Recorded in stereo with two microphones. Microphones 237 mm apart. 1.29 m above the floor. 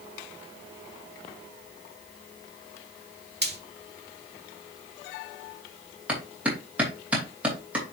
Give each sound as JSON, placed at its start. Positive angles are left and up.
{"t": 3.4, "sound": "frying", "side_deg": -45, "distance_m": 1.3}
{"t": 6.1, "sound": "a clap", "side_deg": -5, "distance_m": 3.0}